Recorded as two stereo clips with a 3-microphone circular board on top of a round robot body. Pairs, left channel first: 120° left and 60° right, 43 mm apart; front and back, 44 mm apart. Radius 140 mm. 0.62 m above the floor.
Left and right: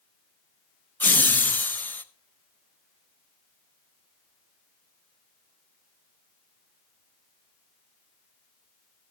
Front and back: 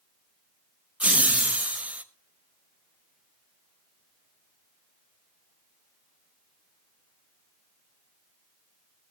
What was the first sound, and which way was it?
Laughter, 135° left.